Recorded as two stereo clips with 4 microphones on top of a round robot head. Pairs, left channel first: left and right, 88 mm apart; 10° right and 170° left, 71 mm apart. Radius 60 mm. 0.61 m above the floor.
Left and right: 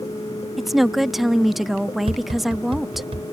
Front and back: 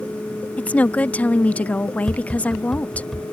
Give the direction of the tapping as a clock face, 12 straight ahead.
3 o'clock.